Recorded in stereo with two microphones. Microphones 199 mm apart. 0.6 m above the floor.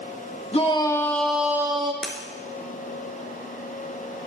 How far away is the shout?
About 1.3 m.